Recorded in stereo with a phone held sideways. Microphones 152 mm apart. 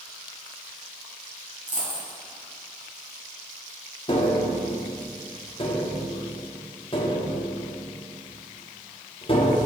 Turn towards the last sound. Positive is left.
turn(degrees=35)  # may be behind; listen again after turning